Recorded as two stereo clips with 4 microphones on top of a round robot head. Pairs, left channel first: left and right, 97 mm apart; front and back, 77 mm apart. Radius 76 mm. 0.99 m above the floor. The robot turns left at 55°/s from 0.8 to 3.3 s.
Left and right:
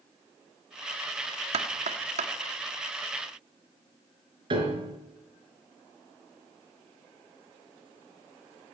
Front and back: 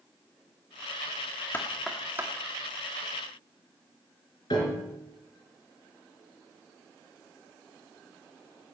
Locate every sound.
1.5 s knocking: 70° right, 1.5 m; by 2.3 s 115° right, 1.5 m
4.5 s a piano: 55° right, 4 m